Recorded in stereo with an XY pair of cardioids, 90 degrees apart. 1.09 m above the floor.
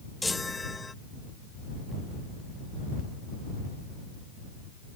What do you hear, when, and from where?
0.2 s a chime: 20° left